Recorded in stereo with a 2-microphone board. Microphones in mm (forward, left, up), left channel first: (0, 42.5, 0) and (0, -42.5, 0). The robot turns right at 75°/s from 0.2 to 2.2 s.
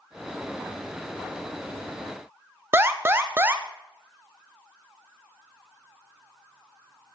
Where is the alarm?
25° right (ahead or behind), 0.5 m.